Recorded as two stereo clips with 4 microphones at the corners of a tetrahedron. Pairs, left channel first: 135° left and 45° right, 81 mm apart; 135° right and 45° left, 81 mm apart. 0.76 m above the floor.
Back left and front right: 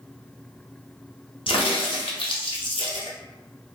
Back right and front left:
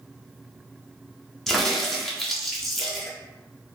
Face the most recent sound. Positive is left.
turn(degrees=140)